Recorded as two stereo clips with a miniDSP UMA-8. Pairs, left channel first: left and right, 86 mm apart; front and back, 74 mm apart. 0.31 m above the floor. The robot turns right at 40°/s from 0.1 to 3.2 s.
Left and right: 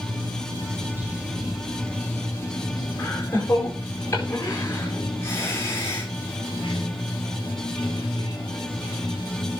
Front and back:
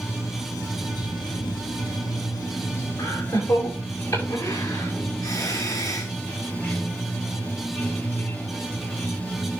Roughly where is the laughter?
Ahead left.